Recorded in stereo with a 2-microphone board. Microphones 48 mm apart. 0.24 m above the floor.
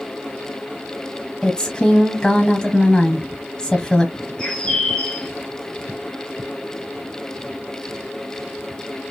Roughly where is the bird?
Centre.